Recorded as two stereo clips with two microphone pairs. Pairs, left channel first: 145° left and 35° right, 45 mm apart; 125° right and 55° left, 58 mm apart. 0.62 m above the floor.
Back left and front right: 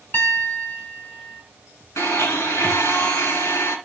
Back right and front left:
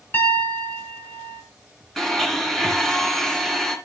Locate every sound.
0.1 s a piano: 175° right, 2.5 m
2.0 s a blender: 155° left, 2.5 m